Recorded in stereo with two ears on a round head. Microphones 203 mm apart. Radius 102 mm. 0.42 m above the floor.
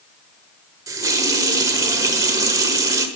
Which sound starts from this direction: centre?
A running tap, at 0.9 s.